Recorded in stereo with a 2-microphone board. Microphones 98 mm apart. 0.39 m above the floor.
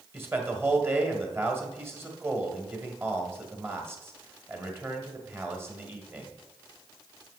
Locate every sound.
0.1 s a man speaking: 25° right (ahead or behind), 1.8 m